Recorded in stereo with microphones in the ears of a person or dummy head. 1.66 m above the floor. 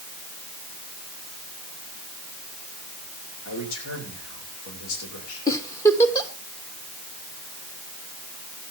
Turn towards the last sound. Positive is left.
turn(degrees=20)  # may be behind; listen again after turning